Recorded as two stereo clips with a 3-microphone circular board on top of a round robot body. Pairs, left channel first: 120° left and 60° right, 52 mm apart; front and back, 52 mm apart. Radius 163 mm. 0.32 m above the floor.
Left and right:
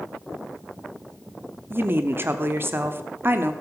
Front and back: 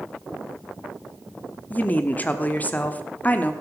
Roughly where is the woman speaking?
Ahead right.